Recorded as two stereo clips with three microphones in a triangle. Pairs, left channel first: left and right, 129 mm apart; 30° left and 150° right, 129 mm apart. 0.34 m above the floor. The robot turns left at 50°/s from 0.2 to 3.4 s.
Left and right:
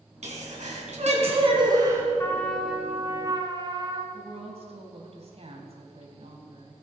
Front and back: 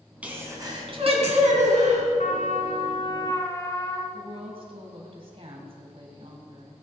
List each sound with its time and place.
0.2 s a sneeze: 70° right, 3.5 m; by 2.1 s 160° right, 3.5 m
2.2 s a trumpet: 25° left, 1.3 m; by 4.0 s 35° right, 1.3 m
4.1 s a woman speaking: 115° right, 2.5 m